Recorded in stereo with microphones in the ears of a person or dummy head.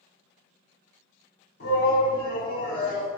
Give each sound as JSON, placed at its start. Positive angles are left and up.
{"t": 1.6, "sound": "a shout", "side_deg": 60, "distance_m": 1.5}